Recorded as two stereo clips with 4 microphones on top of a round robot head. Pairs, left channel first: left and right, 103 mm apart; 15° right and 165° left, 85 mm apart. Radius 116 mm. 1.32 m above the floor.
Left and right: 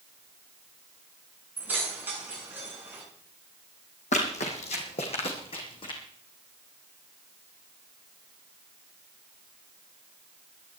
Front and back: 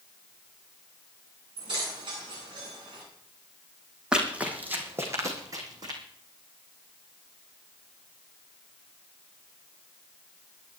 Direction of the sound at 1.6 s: 160° right.